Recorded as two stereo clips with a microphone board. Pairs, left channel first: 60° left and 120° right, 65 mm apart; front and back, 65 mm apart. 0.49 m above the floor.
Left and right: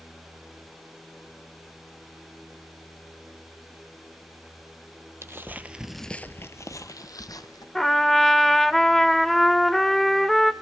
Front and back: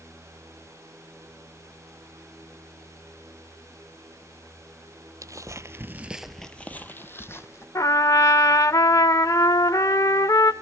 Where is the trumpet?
25° right, 0.5 m.